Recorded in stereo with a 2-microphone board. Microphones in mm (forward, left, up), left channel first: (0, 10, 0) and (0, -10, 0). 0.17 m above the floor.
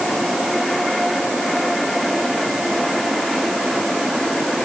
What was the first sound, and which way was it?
Only background noise.